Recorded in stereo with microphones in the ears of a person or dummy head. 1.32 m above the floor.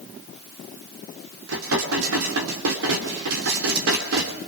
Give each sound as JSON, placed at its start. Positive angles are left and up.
{"t": 1.5, "sound": "dishes clattering", "side_deg": -75, "distance_m": 2.5}